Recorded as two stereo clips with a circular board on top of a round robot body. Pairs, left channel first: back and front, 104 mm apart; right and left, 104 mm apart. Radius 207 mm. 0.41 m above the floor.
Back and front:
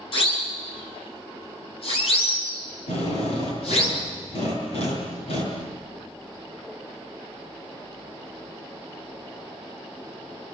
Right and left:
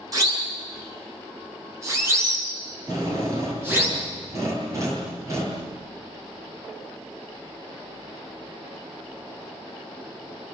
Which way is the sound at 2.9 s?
150° left.